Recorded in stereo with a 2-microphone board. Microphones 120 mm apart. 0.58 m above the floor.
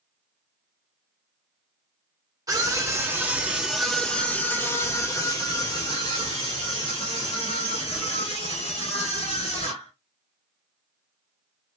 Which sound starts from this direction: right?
A scream, at 2.5 s.